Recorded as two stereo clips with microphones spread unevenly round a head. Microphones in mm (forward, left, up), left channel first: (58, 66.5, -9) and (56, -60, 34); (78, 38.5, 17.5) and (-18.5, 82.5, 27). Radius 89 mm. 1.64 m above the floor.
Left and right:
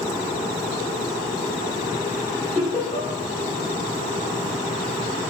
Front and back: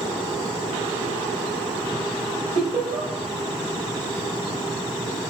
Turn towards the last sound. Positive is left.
turn(degrees=150)